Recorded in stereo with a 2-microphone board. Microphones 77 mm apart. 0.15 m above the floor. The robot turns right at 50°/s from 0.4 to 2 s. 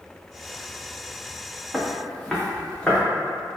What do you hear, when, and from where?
1.7 s footsteps: 10° right (ahead or behind), 0.8 m; by 3.0 s 10° left (ahead or behind), 1.4 m